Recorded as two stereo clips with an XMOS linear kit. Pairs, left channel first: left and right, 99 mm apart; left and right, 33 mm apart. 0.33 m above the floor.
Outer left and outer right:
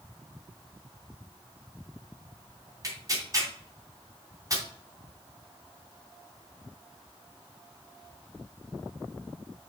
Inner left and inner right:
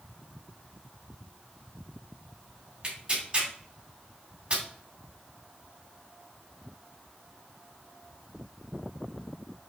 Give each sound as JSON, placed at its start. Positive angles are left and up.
{"t": 2.8, "sound": "tearing paper", "side_deg": -35, "distance_m": 2.5}